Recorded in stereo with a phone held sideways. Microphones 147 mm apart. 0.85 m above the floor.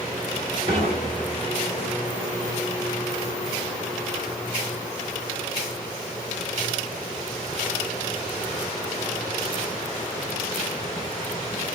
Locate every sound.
0.7 s dishes clattering: 85° right, 1.7 m